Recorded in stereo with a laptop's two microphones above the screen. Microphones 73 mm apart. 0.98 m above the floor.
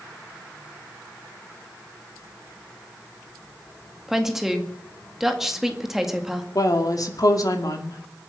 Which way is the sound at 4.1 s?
5° right (ahead or behind).